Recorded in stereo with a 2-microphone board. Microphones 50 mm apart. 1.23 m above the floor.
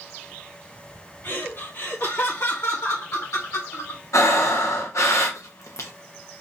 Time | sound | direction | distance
1.2 | laughter | 55° left (ahead or behind) | 2 m
4.1 | breathing | 75° left (ahead or behind) | 1.1 m